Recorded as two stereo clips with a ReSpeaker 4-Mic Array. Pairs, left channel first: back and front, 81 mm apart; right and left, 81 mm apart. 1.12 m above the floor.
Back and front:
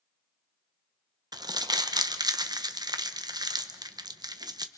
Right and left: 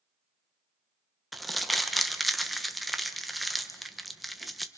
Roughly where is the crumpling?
Ahead.